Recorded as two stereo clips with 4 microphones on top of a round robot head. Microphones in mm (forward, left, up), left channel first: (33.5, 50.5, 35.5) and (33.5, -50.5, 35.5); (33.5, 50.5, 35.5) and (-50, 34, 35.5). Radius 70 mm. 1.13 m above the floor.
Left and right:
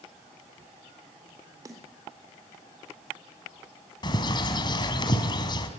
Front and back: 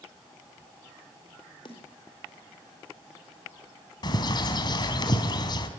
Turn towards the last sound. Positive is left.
turn(degrees=45)